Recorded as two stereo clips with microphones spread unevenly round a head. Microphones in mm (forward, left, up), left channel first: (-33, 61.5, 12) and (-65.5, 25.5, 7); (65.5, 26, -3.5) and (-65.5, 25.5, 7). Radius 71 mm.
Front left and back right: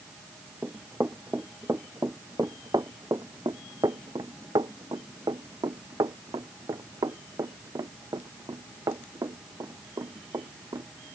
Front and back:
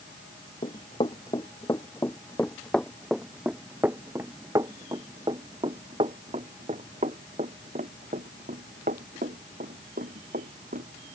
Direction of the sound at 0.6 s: 60° right.